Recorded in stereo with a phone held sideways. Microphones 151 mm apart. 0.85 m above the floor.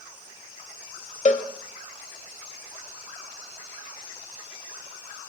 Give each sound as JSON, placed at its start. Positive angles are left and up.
{"t": 1.2, "sound": "a cowbell", "side_deg": 55, "distance_m": 1.3}